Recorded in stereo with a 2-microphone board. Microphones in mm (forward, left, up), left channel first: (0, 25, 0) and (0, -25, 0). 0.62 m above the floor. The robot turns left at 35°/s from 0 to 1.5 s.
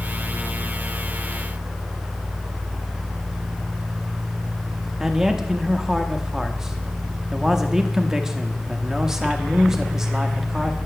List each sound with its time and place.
5.0 s a man speaking: 10° right (ahead or behind), 0.8 m